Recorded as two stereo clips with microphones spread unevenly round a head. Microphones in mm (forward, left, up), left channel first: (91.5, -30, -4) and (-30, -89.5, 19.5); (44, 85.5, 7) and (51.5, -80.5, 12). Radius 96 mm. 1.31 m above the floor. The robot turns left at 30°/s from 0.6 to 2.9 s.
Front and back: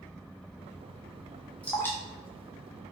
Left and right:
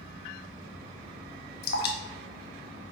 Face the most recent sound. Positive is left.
turn(degrees=80)